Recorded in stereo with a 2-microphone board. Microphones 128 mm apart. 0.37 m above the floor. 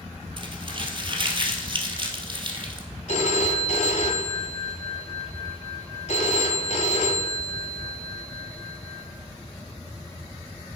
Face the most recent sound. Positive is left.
turn(degrees=65)  # may be behind; listen again after turning